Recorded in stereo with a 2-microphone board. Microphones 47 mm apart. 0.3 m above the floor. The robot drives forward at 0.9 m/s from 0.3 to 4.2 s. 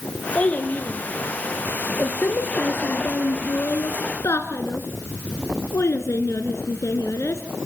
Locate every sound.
0.3 s a child speaking: 30° left (ahead or behind), 4 m; by 7.4 s 75° left (ahead or behind), 2 m